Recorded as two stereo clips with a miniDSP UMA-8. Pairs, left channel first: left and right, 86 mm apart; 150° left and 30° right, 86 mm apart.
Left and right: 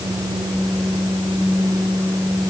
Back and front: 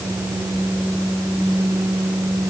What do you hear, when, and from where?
Only background noise.